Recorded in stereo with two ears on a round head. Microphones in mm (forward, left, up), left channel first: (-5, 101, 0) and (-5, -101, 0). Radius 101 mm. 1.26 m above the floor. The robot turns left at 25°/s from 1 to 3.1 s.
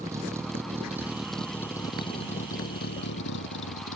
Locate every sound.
0.0 s a vehicle: 15° right (ahead or behind); by 4.0 s 60° left (ahead or behind)